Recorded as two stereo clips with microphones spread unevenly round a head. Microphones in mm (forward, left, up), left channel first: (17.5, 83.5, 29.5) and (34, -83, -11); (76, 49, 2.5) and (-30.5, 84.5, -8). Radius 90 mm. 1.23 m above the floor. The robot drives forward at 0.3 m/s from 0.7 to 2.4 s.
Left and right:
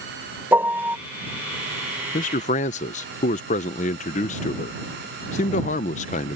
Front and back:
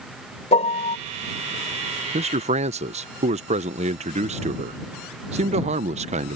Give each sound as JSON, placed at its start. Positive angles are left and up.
{"t": 0.5, "sound": "a piano", "azimuth_deg": -5}
{"t": 2.1, "sound": "a man speaking", "azimuth_deg": 150}